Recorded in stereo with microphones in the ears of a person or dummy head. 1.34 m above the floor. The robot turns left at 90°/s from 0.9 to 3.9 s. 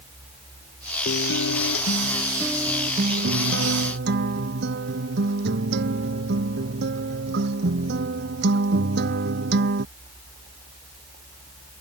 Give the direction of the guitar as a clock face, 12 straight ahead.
8 o'clock.